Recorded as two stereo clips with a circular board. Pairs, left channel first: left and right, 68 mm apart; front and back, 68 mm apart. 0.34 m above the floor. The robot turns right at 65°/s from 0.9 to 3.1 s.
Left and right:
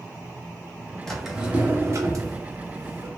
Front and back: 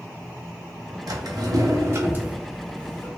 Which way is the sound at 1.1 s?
170° left.